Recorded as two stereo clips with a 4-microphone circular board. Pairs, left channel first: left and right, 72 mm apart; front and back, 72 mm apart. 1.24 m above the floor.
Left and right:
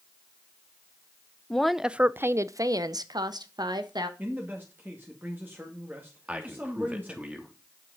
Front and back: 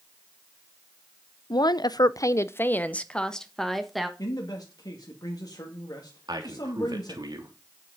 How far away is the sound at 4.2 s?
About 2 m.